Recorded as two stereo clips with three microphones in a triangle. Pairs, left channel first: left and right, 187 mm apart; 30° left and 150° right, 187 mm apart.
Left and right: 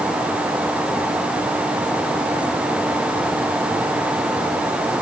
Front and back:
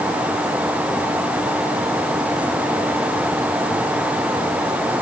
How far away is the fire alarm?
No fire alarm in this recording.